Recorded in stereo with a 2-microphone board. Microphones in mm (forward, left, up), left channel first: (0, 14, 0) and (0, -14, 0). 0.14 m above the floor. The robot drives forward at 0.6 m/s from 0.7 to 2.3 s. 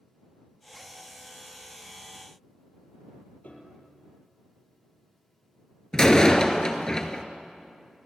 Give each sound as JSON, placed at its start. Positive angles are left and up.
{"t": 3.4, "sound": "a piano", "side_deg": 50, "distance_m": 3.5}
{"t": 5.9, "sound": "a door slam", "side_deg": 25, "distance_m": 1.7}